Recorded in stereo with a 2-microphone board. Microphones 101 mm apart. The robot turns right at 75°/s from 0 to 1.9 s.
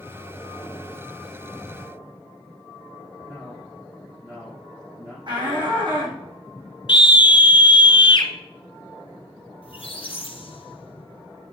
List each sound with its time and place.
3.3 s a man speaking: 15° right (ahead or behind), 5.5 m
5.3 s a shout: 50° right (ahead or behind), 6 m
6.9 s a scream: 50° left (ahead or behind), 1.6 m
9.6 s a squeak: 60° left (ahead or behind), 2 m